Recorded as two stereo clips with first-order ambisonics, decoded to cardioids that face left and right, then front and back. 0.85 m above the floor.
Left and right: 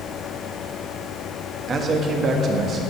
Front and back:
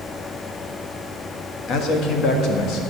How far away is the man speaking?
About 1.4 m.